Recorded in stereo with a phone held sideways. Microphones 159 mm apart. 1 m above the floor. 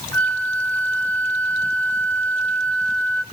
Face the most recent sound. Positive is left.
turn(degrees=10)  # may be behind; listen again after turning